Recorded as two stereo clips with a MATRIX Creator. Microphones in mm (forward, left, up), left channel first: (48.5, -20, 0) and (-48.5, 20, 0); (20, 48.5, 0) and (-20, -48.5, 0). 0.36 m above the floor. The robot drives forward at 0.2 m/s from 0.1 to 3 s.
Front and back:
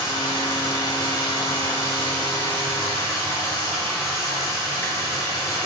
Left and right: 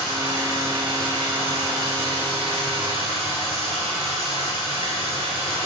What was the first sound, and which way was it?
Running water, 70° right.